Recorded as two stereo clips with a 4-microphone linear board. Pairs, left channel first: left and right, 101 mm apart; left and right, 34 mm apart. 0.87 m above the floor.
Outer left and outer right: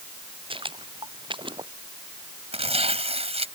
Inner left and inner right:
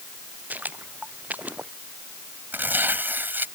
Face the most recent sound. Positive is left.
turn(degrees=-80)